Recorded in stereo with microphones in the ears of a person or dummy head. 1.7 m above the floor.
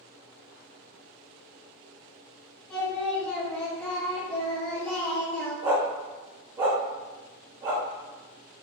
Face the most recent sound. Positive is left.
turn(degrees=-25)  # may be behind; listen again after turning